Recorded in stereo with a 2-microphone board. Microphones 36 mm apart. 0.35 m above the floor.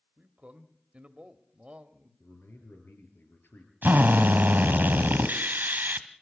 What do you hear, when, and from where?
0.2 s a man speaking: 35° right (ahead or behind), 1.2 m
2.2 s a man speaking: 75° left (ahead or behind), 5 m
3.8 s a drill: 55° right (ahead or behind), 1.3 m